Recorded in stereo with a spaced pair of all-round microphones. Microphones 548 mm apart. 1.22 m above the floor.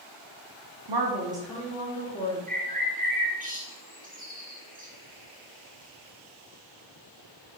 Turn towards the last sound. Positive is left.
turn(degrees=-15)  # may be behind; listen again after turning